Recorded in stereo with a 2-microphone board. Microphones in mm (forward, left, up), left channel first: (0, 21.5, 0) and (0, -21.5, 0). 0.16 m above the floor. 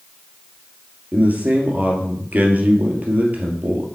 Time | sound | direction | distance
1.1 | a man speaking | 35° right (ahead or behind) | 2.5 m